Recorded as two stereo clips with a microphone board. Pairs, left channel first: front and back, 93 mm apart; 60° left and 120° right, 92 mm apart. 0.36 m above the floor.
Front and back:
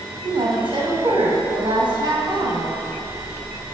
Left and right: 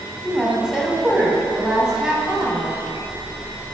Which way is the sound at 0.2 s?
160° left.